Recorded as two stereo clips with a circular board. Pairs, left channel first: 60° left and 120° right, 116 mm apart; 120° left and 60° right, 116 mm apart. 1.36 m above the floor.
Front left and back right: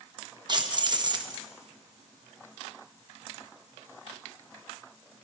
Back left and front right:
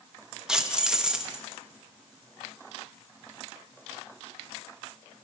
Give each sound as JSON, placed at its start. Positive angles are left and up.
{"t": 0.5, "sound": "keys jangling", "azimuth_deg": -145, "distance_m": 0.7}